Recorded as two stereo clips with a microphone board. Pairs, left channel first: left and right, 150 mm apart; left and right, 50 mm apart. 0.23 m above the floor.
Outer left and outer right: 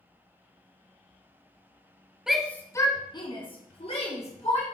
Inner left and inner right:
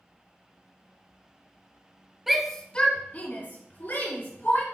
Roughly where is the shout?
Centre.